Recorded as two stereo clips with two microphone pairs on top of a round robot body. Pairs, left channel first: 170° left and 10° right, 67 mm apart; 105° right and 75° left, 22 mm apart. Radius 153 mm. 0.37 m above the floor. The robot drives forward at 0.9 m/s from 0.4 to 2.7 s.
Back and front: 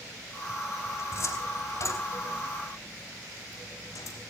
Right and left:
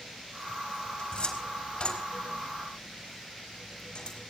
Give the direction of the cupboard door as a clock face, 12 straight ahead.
5 o'clock.